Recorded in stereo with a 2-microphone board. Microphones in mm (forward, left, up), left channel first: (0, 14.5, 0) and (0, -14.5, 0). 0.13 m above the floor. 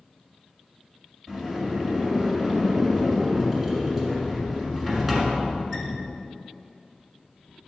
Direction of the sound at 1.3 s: 10° right (ahead or behind).